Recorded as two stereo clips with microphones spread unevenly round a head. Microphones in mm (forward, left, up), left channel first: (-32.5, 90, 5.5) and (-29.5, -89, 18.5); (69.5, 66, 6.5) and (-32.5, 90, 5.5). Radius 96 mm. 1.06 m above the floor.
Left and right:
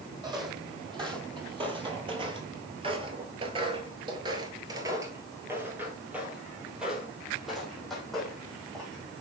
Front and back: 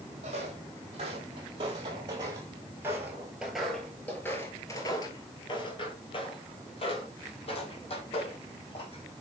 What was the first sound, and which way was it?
Footsteps, 150° right.